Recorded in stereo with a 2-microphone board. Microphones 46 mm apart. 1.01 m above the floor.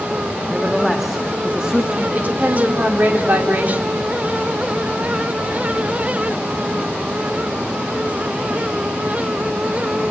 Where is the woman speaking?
35° right (ahead or behind), 3 m.